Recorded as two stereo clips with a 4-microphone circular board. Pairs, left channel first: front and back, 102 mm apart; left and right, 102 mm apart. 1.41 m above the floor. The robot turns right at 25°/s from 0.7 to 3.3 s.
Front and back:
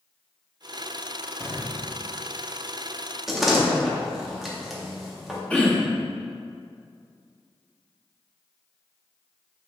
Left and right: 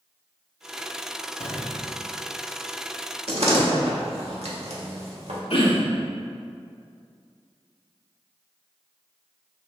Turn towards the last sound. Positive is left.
turn(degrees=80)